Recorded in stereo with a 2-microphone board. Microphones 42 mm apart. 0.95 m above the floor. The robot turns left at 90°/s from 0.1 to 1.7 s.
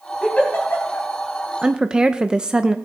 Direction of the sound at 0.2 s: 20° left (ahead or behind).